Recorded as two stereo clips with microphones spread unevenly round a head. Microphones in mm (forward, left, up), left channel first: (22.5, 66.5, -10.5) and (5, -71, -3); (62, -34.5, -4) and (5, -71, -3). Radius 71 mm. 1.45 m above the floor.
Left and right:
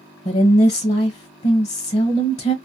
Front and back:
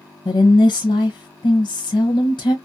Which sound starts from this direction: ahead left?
A woman speaking, at 0.2 s.